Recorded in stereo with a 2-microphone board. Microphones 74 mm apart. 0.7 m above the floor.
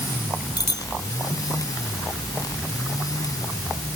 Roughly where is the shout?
I don't hear a shout.